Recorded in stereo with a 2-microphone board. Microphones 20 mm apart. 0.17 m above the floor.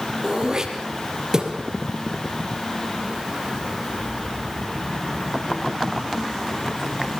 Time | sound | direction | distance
0.2 | throat clearing | 35° right (ahead or behind) | 4 m